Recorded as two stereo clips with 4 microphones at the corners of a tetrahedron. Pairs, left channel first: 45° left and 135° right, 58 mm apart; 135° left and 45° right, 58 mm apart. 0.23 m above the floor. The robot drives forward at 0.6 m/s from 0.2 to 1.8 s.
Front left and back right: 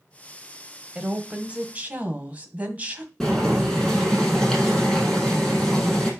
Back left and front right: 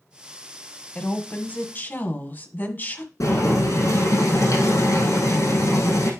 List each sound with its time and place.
0.9 s a woman speaking: 165° left, 1.2 m; by 3.1 s 170° left, 1.5 m
3.2 s boiling: 130° left, 5 m